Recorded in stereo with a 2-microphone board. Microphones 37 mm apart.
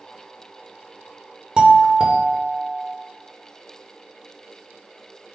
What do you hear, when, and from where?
1.6 s a doorbell: 25° right (ahead or behind), 1.3 m